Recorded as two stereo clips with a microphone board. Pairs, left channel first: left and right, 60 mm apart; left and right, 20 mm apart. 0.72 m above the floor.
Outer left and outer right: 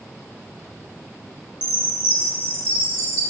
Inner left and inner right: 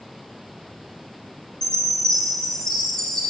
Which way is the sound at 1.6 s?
40° left (ahead or behind).